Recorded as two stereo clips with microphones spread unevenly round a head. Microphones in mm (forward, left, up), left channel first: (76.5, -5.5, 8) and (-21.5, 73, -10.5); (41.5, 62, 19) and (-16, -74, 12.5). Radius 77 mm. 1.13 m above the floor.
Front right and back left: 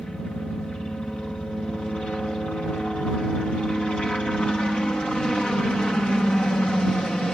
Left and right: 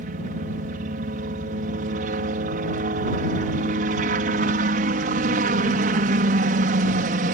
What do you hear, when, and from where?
0.0 s a helicopter: 125° right